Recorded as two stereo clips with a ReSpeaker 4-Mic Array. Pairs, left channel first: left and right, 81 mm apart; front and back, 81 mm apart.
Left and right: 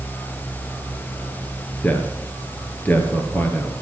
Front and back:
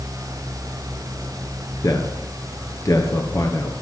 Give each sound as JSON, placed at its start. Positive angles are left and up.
{"t": 1.8, "sound": "a man speaking", "azimuth_deg": 30, "distance_m": 2.5}